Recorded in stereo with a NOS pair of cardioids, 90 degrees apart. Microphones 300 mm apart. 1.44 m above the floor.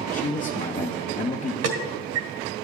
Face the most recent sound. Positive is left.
turn(degrees=-60)